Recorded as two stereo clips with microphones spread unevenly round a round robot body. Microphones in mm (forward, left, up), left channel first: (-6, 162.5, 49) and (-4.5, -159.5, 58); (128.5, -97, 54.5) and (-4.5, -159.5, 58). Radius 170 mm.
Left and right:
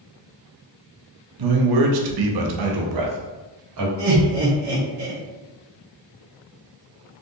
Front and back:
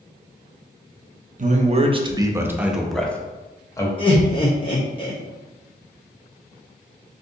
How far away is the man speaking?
About 0.9 m.